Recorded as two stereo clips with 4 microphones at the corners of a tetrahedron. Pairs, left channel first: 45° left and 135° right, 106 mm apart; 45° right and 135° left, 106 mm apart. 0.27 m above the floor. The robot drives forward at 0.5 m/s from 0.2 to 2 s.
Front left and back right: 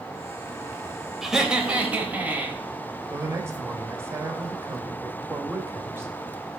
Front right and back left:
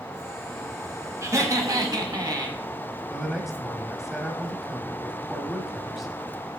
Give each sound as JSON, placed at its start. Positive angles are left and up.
{"t": 1.2, "sound": "laughter", "azimuth_deg": 140, "distance_m": 1.0}
{"t": 3.1, "sound": "a man speaking", "azimuth_deg": -140, "distance_m": 1.0}